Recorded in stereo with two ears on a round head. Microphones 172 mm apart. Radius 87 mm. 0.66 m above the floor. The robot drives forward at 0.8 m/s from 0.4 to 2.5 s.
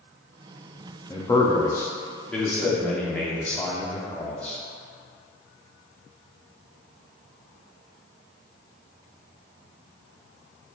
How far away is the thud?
I don't hear a thud.